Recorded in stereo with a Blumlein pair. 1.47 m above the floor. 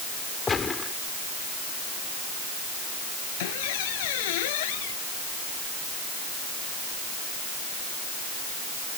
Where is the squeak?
50° left.